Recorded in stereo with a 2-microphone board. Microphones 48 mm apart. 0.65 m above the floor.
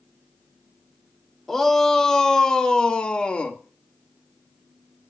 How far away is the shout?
About 1.8 m.